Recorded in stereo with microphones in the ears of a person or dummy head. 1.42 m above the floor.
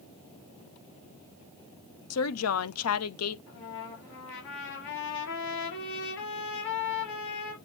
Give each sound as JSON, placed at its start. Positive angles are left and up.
{"t": 2.1, "sound": "a woman speaking", "side_deg": 75, "distance_m": 0.9}
{"t": 3.5, "sound": "a trumpet", "side_deg": 70, "distance_m": 4.5}